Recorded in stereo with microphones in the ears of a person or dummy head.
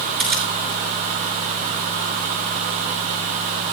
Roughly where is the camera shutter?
Centre.